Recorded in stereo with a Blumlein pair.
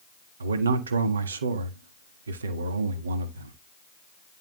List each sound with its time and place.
0.4 s a man speaking: 70° right, 1.6 m